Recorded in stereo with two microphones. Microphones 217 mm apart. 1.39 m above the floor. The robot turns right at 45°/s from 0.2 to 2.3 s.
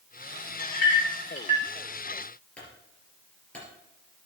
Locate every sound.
0.6 s a clink: 70° left (ahead or behind), 2 m; by 1.7 s 25° left (ahead or behind), 2 m
2.6 s a clunk: 5° left (ahead or behind), 4 m